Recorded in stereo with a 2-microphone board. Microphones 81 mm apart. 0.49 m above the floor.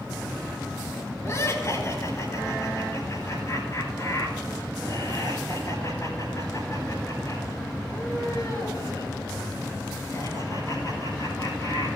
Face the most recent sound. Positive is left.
turn(degrees=45)  # may be behind; listen again after turning